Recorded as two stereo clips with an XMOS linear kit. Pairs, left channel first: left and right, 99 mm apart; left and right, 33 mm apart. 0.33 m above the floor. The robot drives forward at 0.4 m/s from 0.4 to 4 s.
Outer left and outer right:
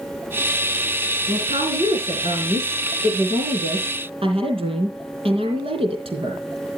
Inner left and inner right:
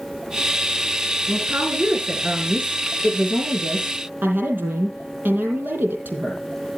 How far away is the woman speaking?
About 4 m.